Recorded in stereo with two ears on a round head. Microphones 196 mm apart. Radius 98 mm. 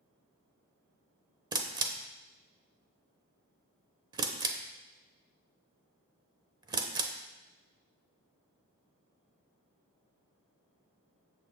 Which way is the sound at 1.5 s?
20° right (ahead or behind).